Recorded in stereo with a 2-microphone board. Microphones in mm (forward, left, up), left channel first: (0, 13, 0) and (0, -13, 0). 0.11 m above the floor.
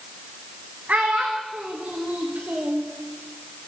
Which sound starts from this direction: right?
A child speaking, at 0.9 s.